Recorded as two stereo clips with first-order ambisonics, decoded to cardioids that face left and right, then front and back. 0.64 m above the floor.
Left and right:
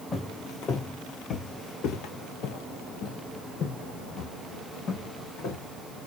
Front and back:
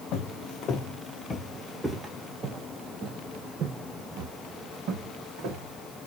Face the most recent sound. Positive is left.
turn(degrees=145)